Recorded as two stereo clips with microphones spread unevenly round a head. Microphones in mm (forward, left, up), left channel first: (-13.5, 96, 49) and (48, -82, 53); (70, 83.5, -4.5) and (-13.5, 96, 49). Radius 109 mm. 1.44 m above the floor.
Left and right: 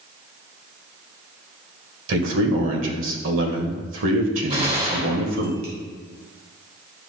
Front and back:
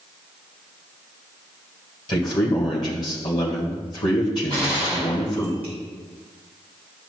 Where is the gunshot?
130° right, 2.5 m.